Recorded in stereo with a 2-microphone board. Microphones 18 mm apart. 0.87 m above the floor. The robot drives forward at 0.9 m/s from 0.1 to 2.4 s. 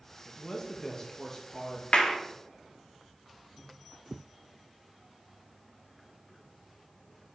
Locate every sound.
0.2 s a man speaking: 30° left (ahead or behind), 1.2 m; by 1.8 s 25° left (ahead or behind), 1.4 m
1.9 s a clap: 70° left (ahead or behind), 1.1 m; by 2.1 s 60° left (ahead or behind), 1.2 m